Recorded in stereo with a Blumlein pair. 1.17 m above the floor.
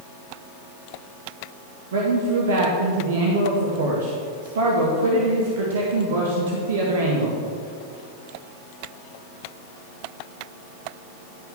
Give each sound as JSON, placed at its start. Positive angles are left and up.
{"t": 1.9, "sound": "a man speaking", "azimuth_deg": -60, "distance_m": 1.6}